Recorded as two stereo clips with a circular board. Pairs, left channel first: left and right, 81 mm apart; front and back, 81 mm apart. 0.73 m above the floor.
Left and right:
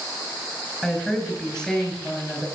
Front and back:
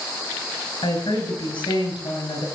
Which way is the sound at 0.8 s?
5° left.